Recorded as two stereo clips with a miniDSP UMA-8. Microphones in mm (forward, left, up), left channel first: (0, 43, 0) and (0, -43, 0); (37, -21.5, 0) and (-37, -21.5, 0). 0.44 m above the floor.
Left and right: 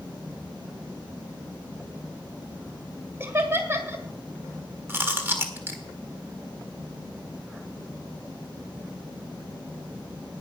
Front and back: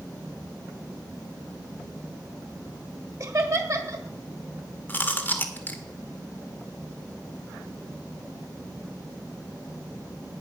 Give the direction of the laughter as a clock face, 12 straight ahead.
5 o'clock.